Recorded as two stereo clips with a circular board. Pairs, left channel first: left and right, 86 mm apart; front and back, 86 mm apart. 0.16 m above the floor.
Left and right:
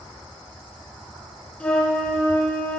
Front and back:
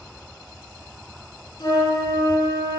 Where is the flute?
15° left, 1.6 m.